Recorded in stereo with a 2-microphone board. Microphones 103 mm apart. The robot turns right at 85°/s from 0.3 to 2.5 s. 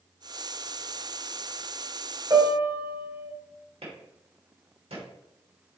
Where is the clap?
75° right (ahead or behind), 3.5 m.